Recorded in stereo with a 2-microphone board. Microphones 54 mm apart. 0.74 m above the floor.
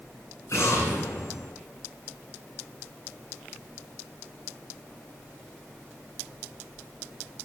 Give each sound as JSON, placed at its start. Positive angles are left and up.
{"t": 0.5, "sound": "an explosion", "side_deg": 60, "distance_m": 8.0}